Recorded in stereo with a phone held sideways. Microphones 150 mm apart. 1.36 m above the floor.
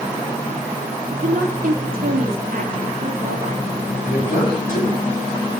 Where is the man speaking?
70° left (ahead or behind), 8 m.